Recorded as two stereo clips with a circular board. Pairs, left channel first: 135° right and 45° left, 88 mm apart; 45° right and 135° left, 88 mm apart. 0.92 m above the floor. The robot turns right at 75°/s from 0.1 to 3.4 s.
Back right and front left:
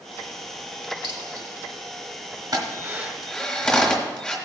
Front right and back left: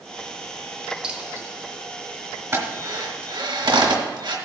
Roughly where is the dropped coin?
Ahead left.